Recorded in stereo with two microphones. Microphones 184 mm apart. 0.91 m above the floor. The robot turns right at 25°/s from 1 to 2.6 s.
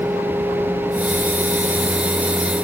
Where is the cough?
No cough in this recording.